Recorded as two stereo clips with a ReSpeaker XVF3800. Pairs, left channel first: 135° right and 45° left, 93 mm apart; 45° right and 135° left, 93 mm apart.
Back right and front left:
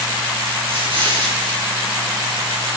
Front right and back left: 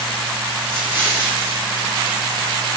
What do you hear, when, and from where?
0.7 s an explosion: 65° left, 4.5 m